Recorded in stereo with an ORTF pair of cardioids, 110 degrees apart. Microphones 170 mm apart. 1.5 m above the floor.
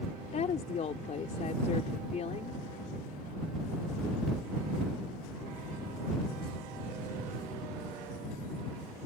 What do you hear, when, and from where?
0.3 s a woman speaking: 40° left